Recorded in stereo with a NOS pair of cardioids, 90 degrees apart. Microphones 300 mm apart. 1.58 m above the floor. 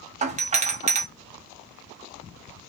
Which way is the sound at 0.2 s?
25° right.